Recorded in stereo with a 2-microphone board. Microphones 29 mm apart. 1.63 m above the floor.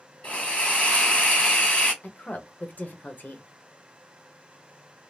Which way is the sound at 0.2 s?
45° left (ahead or behind).